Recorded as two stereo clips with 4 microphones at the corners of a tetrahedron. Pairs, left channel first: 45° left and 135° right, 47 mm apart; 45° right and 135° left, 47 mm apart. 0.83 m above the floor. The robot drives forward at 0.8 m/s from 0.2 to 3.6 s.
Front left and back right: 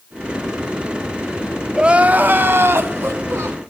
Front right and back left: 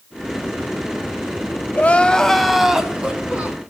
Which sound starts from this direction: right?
Crying, at 1.7 s.